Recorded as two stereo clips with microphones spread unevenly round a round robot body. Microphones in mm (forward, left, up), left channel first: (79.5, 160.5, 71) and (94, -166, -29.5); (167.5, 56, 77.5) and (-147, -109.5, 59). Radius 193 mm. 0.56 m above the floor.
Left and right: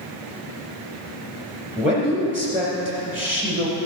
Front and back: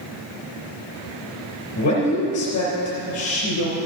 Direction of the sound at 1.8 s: 15° right.